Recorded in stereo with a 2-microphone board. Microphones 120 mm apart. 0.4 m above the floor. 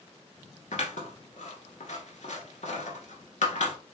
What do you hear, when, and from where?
0.7 s scissors: 80° left, 1.0 m